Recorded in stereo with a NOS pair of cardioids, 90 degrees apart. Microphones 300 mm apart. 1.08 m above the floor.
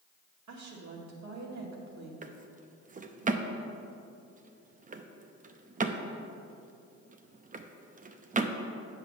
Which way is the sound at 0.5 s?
60° right.